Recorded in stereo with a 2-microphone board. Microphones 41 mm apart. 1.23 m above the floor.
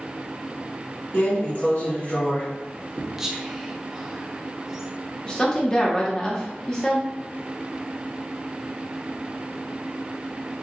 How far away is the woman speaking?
About 1.0 m.